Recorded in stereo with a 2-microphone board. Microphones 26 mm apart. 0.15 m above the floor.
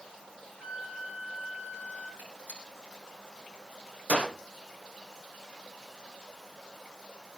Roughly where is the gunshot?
Right.